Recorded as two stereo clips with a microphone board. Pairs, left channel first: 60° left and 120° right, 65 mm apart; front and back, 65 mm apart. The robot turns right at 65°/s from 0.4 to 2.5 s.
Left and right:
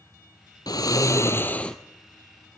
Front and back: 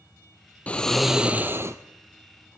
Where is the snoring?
65° left, 0.9 m; by 1.8 s 140° left, 0.9 m.